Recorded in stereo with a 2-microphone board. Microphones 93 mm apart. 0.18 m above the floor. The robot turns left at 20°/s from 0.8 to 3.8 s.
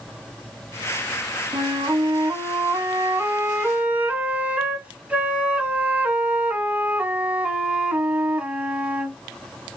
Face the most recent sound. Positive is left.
turn(degrees=-165)